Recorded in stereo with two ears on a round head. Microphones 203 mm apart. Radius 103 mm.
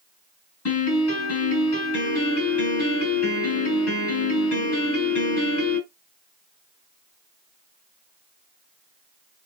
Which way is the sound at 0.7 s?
80° left.